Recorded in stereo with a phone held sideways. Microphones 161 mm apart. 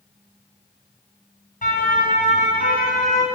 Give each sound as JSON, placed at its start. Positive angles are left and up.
{"t": 1.6, "sound": "a siren", "side_deg": 55, "distance_m": 7.5}